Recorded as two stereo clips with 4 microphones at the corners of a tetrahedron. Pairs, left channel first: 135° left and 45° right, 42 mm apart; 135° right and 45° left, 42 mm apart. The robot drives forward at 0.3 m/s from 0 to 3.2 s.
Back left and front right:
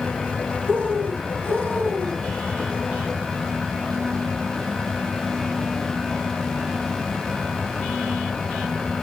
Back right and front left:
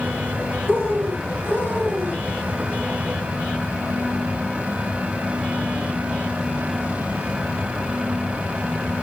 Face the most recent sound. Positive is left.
turn(degrees=-175)